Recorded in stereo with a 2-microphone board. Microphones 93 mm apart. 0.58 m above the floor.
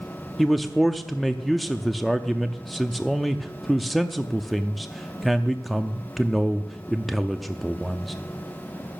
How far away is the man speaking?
About 0.6 m.